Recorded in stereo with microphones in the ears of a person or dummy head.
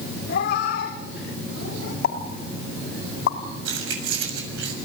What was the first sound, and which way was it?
A cat meowing, 55° left (ahead or behind).